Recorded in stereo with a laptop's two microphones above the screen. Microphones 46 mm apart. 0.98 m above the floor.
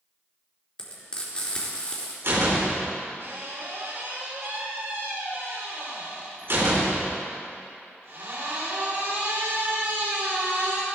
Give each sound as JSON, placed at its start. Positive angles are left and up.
{"t": 0.8, "sound": "frying", "side_deg": 20, "distance_m": 4.0}
{"t": 2.2, "sound": "a door slam", "side_deg": -60, "distance_m": 2.5}